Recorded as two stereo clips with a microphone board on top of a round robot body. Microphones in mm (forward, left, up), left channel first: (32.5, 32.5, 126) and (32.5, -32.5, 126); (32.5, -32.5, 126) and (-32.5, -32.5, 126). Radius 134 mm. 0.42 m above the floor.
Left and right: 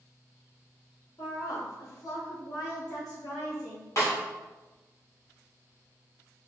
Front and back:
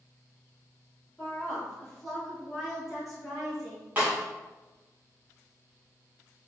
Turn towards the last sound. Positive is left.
turn(degrees=120)